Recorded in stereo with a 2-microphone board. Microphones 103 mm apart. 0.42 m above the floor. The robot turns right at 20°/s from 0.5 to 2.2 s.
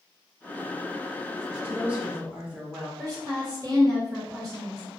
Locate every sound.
1.6 s a woman speaking: 10° right (ahead or behind), 0.7 m; by 2.9 s 15° right (ahead or behind), 0.7 m
3.0 s a woman speaking: 35° right (ahead or behind), 1.1 m